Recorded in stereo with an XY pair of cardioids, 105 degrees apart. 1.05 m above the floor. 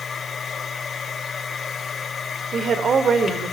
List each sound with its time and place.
0.0 s a machine running: 35° left, 5 m
2.5 s a woman speaking: 50° right, 3.5 m